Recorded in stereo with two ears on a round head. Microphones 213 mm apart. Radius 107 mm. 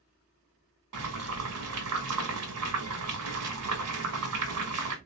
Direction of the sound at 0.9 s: 65° right (ahead or behind).